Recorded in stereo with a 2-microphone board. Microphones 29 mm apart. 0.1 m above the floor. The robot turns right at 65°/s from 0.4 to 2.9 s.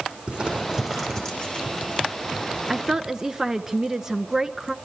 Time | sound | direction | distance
0.3 | crumpling | 30° right (ahead or behind) | 6.5 m
2.7 | a woman speaking | 15° right (ahead or behind) | 1.1 m